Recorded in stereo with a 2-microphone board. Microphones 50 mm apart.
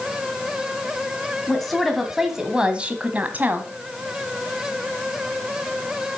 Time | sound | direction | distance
1.5 | a woman speaking | 5° left (ahead or behind) | 1.5 m